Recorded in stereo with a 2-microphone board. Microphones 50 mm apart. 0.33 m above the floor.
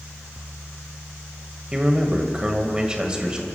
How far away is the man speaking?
About 1.4 m.